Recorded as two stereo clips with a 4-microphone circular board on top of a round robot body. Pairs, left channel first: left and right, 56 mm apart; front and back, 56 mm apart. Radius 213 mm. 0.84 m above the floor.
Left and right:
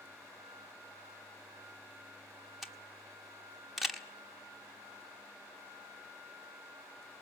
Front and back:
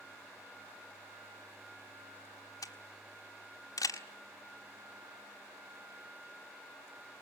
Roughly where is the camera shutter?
Ahead.